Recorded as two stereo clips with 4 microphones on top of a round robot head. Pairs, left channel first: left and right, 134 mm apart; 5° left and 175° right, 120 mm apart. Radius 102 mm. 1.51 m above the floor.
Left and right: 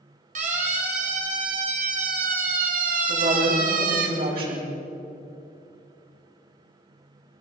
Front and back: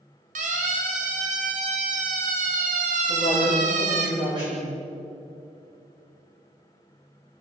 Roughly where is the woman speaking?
Behind right.